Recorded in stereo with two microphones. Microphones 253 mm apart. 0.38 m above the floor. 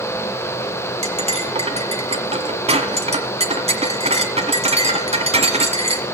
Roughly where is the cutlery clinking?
Right.